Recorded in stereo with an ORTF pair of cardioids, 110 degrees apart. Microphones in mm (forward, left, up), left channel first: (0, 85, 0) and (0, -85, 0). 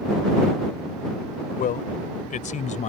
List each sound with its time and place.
1.6 s a man speaking: 55° left; by 2.9 s 45° left